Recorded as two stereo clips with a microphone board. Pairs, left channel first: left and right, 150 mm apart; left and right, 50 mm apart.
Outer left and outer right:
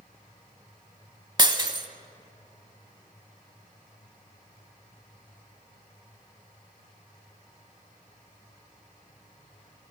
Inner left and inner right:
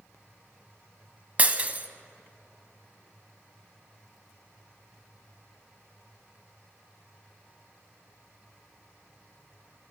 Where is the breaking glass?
30° right (ahead or behind), 0.5 m.